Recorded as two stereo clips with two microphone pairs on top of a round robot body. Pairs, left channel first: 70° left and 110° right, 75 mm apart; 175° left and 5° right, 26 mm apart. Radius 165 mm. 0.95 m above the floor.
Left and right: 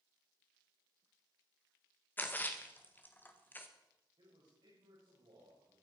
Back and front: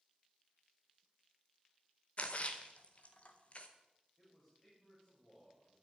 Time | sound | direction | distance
2.2 | a splash | 130° left | 1.7 m
4.2 | a man speaking | 120° right | 6.5 m